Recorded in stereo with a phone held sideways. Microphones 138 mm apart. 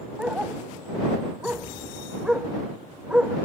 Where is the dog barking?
5° right (ahead or behind).